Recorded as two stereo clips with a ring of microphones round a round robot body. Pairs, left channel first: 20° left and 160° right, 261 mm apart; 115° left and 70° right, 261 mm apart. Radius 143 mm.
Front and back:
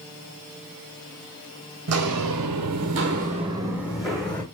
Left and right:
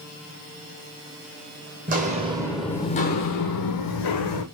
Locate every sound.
1.9 s footsteps: 125° right, 0.8 m; by 4.4 s 105° left, 1.1 m